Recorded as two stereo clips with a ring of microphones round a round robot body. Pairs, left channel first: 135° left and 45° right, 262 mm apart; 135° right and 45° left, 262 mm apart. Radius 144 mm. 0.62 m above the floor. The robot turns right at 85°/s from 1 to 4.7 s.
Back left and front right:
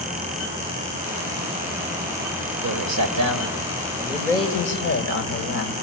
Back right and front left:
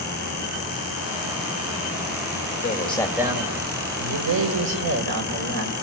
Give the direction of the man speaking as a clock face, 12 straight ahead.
3 o'clock.